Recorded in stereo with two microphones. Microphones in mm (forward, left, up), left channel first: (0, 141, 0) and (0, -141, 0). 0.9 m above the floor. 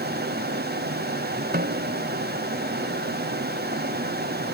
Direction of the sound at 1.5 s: 35° right (ahead or behind).